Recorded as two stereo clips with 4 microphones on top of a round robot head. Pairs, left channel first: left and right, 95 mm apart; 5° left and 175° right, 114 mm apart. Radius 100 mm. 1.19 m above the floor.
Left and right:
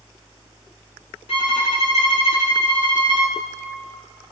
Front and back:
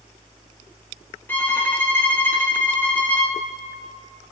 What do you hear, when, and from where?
1.3 s a violin: 75° left, 2.5 m